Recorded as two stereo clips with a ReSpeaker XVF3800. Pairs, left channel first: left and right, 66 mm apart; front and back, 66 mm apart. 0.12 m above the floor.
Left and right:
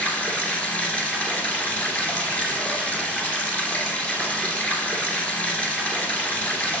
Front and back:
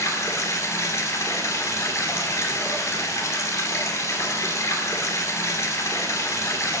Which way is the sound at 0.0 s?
25° left.